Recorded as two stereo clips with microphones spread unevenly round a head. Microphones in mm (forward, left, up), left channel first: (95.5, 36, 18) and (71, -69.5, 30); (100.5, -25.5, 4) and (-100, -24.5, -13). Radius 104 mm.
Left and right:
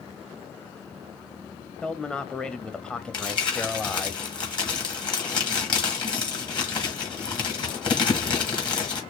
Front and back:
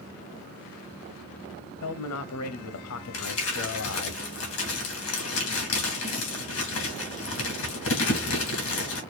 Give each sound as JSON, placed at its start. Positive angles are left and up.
{"t": 1.8, "sound": "a man speaking", "azimuth_deg": -5, "distance_m": 0.7}
{"t": 3.1, "sound": "crumpling", "azimuth_deg": 30, "distance_m": 2.5}